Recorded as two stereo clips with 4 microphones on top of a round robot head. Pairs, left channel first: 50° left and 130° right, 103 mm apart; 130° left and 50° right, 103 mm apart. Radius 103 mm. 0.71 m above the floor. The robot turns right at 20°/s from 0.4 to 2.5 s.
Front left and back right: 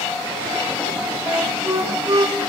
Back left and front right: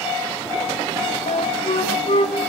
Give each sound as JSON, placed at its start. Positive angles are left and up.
{"t": 1.3, "sound": "a flute", "azimuth_deg": 150, "distance_m": 2.5}